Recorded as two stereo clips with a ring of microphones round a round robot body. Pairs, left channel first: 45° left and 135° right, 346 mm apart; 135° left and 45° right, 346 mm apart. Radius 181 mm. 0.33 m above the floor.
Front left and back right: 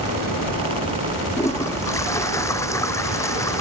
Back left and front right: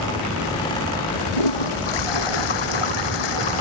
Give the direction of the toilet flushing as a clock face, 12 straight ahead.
8 o'clock.